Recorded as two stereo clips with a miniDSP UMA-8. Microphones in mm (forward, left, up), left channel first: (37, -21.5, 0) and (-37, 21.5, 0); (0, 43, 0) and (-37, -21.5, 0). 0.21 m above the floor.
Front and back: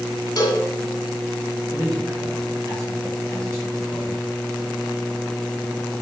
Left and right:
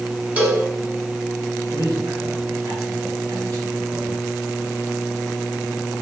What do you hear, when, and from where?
0.4 s a cowbell: 55° right, 1.6 m
1.7 s a man speaking: 155° right, 3 m